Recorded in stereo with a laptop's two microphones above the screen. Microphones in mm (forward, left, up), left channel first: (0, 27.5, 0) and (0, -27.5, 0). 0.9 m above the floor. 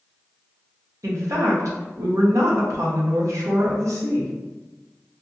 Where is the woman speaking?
65° right (ahead or behind), 0.7 m.